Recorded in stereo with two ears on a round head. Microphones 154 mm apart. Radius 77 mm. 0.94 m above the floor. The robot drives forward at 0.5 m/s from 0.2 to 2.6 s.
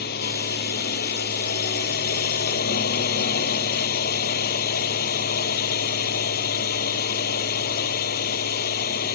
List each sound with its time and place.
0.0 s a drone: 60° left (ahead or behind)